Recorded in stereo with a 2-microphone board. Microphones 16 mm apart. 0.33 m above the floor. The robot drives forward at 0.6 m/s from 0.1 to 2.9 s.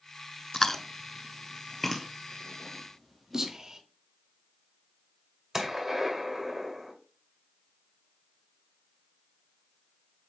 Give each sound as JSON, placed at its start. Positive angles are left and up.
{"t": 0.5, "sound": "chewing", "side_deg": 30, "distance_m": 0.5}
{"t": 3.3, "sound": "whispering", "side_deg": -45, "distance_m": 1.4}
{"t": 5.5, "sound": "a gunshot", "side_deg": -30, "distance_m": 1.7}